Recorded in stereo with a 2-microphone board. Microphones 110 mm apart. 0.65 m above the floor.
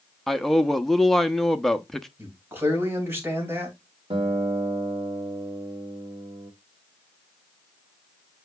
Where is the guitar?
60° right (ahead or behind), 1.3 m.